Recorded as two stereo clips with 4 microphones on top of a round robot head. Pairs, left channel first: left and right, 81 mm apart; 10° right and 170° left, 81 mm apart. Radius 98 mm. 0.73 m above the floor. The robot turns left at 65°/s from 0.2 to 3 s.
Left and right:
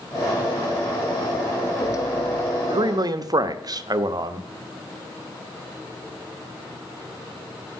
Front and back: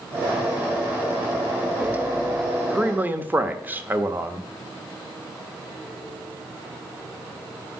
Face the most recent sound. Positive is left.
turn(degrees=-120)